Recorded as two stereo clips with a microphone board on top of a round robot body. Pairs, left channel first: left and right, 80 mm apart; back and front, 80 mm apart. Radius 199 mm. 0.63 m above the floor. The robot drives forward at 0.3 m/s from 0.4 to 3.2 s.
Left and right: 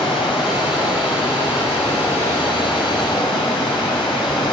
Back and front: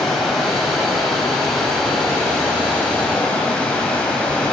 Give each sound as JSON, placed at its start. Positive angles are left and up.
{"t": 0.0, "sound": "running water", "azimuth_deg": 90, "distance_m": 5.0}